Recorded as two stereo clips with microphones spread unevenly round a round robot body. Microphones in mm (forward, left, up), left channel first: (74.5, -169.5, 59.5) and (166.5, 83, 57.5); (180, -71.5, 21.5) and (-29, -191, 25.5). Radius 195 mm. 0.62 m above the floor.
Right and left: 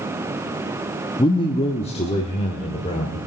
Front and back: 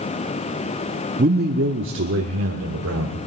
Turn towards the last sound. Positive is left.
turn(degrees=180)